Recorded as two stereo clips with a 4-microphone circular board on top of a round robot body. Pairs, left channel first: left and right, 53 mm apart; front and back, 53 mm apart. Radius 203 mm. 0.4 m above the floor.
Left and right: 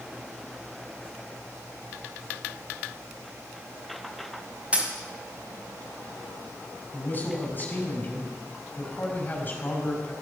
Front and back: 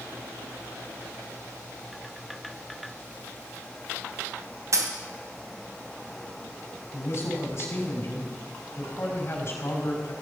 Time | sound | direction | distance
4.7 | a dropped coin | 155° right | 2 m
6.9 | a man speaking | 40° left | 5 m